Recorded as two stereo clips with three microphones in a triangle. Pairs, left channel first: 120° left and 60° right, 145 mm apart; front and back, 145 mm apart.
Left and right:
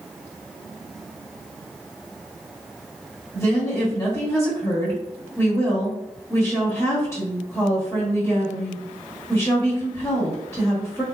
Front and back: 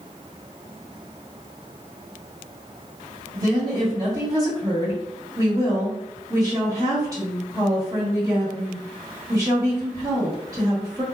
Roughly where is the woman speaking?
Behind.